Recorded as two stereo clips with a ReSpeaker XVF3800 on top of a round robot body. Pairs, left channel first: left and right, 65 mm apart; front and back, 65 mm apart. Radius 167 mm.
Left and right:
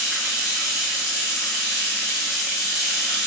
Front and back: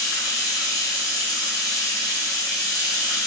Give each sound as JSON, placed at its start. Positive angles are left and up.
{"t": 0.0, "sound": "running water", "azimuth_deg": -5, "distance_m": 1.0}